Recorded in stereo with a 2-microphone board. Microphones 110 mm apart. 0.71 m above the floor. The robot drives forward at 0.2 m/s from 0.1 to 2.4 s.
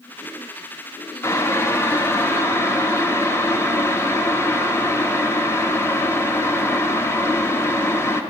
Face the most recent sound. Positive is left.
turn(degrees=20)  # may be behind; listen again after turning